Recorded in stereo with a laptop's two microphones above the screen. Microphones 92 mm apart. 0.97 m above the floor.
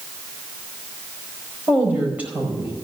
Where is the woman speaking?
15° right (ahead or behind), 4.5 m.